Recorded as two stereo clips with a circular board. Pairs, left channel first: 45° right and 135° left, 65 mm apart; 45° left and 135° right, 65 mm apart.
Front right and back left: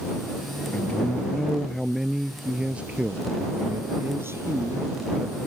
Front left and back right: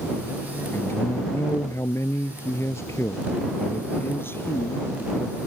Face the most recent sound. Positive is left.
turn(degrees=100)